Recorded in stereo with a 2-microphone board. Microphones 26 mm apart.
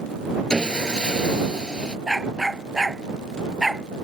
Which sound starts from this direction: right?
A dog barking, at 2.1 s.